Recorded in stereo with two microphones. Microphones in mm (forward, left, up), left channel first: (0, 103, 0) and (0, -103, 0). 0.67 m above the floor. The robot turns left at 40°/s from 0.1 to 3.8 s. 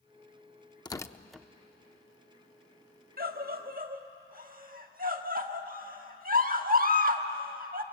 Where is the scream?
45° right (ahead or behind), 1.4 m.